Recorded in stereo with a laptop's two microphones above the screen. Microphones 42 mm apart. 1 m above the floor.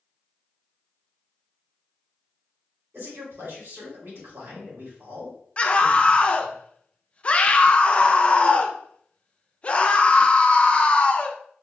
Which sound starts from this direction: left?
A scream, at 5.6 s.